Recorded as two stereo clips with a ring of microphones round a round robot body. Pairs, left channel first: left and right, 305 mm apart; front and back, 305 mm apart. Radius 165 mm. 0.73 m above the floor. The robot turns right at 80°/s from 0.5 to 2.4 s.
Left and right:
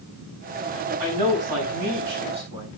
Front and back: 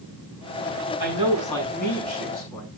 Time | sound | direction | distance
1.0 | a man speaking | 125° right | 7.5 m